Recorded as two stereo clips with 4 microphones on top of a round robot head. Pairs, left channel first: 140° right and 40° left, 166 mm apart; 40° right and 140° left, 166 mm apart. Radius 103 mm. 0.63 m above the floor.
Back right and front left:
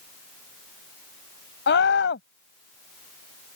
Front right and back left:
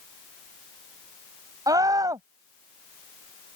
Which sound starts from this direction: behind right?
A scream, at 1.7 s.